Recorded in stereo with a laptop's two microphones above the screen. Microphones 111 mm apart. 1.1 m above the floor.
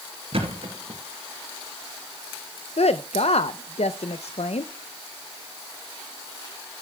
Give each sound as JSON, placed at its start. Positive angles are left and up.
{"t": 0.3, "sound": "a thud", "side_deg": -65, "distance_m": 3.0}
{"t": 2.8, "sound": "a woman speaking", "side_deg": 75, "distance_m": 0.5}